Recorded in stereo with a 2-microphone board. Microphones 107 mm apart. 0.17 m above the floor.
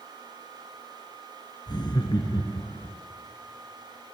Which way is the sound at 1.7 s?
45° left (ahead or behind).